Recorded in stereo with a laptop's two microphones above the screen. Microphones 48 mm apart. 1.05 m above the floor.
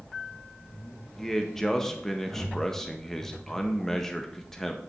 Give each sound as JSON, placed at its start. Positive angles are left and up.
{"t": 1.2, "sound": "a man speaking", "side_deg": 5, "distance_m": 0.6}